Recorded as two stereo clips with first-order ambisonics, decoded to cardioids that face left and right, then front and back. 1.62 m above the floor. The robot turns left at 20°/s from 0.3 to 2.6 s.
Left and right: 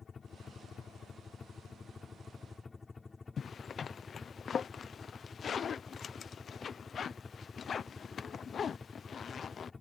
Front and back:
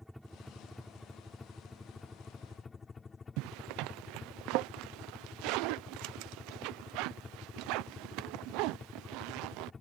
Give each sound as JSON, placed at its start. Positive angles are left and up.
{"t": 0.0, "sound": "a helicopter", "azimuth_deg": 90}
{"t": 3.4, "sound": "a zipper", "azimuth_deg": 155}